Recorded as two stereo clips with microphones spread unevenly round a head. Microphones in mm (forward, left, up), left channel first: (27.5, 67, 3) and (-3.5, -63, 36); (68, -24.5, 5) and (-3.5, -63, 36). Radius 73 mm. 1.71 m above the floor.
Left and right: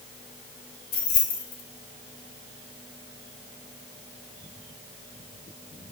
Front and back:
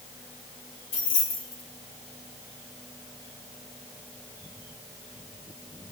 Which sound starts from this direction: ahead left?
Keys jangling, at 0.9 s.